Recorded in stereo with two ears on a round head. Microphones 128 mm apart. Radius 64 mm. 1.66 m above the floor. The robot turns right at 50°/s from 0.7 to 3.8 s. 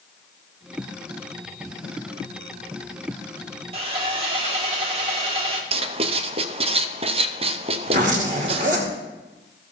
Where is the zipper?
60° right (ahead or behind), 2.5 m.